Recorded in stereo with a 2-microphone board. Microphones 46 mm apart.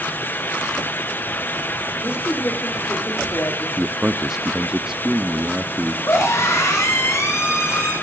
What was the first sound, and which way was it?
A woman speaking, 80° left.